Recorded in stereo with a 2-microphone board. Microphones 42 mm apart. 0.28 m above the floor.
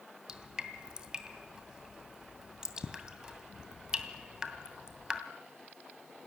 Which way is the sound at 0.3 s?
20° right (ahead or behind).